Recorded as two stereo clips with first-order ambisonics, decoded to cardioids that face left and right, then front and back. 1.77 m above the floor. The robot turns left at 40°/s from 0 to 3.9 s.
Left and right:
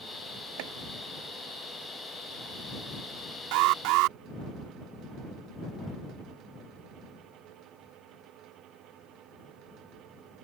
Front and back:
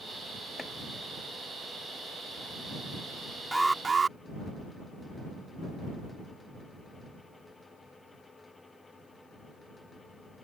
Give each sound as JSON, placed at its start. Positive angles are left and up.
{"t": 0.6, "sound": "chopping", "azimuth_deg": -80}
{"t": 3.5, "sound": "an alarm", "azimuth_deg": -90}